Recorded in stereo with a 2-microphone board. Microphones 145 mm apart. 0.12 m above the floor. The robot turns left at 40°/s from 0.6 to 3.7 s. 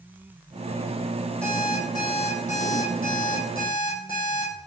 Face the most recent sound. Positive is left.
turn(degrees=80)